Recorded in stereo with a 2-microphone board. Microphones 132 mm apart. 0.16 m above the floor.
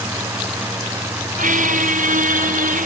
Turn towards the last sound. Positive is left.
turn(degrees=-85)